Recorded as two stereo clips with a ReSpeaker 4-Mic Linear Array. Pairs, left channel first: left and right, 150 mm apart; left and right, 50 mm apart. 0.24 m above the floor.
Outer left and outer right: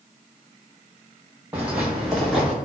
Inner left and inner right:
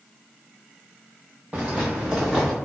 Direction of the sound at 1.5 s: 15° right (ahead or behind).